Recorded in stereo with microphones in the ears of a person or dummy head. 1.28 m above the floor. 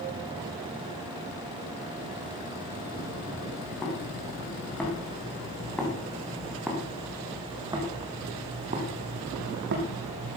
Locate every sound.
3.5 s footsteps: 10° left (ahead or behind), 6 m; by 10.4 s 60° right (ahead or behind), 3 m